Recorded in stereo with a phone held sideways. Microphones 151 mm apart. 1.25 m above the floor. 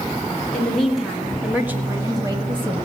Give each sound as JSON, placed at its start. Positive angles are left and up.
{"t": 0.5, "sound": "a woman speaking", "side_deg": 5, "distance_m": 2.5}